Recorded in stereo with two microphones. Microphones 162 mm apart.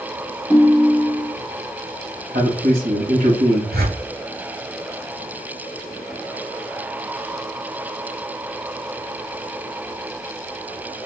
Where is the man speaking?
55° right (ahead or behind), 2.5 m.